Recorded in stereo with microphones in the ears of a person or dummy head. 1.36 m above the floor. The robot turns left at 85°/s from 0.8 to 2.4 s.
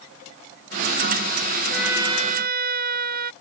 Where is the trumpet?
5° left; by 3.3 s 55° right.